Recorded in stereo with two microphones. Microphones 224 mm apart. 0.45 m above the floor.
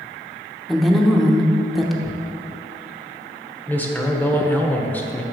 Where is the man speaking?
10° left (ahead or behind), 0.9 m.